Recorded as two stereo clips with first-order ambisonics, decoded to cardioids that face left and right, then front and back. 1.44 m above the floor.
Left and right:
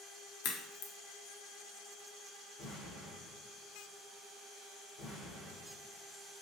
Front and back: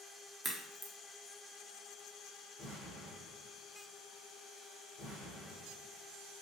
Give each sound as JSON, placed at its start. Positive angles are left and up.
{"t": 0.4, "sound": "a crack", "azimuth_deg": 85, "distance_m": 0.5}
{"t": 2.6, "sound": "an explosion", "azimuth_deg": 55, "distance_m": 1.6}